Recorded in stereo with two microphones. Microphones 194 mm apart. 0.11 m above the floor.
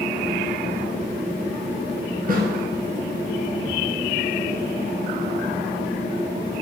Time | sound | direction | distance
2.3 | a snare drum | 50° right (ahead or behind) | 1.2 m